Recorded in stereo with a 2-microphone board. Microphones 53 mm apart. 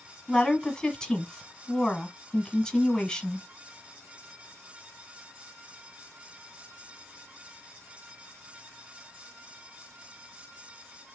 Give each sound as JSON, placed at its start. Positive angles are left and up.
{"t": 0.3, "sound": "a woman speaking", "side_deg": 10, "distance_m": 1.4}